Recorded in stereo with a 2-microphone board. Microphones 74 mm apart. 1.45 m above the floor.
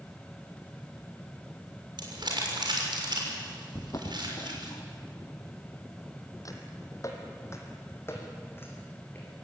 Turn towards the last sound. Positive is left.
turn(degrees=25)  # may be behind; listen again after turning